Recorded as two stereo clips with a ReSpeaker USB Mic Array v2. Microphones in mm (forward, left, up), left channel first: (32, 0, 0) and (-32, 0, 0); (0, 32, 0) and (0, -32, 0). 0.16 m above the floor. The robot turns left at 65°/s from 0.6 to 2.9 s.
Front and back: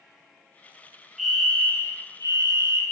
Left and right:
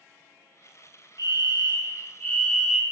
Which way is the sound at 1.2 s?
95° left.